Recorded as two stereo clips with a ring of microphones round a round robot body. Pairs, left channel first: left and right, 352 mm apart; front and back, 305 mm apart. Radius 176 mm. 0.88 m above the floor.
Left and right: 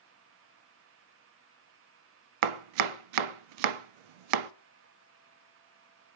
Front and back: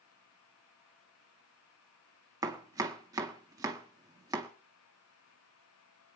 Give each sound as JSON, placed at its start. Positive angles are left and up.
{"t": 2.4, "sound": "chopping", "azimuth_deg": -100, "distance_m": 0.6}